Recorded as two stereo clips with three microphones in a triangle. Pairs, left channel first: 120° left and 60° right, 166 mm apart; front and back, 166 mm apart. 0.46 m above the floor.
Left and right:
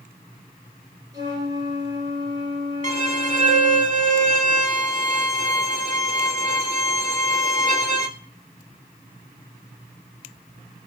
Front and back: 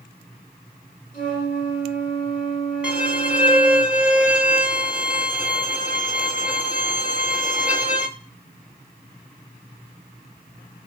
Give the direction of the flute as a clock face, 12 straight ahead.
12 o'clock.